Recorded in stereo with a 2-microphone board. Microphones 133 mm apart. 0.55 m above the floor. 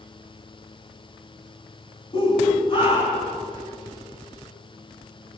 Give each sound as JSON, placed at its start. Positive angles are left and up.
{"t": 2.1, "sound": "a shout", "side_deg": 40, "distance_m": 4.5}